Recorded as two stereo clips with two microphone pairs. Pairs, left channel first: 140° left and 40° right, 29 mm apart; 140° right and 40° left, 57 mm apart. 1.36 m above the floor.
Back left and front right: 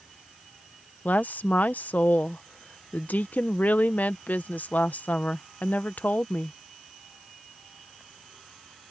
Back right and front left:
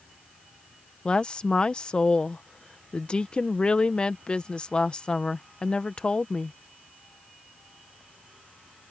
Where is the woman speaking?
145° left.